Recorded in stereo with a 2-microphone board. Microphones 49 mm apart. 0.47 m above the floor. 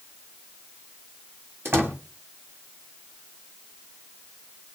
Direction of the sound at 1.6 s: 55° right (ahead or behind).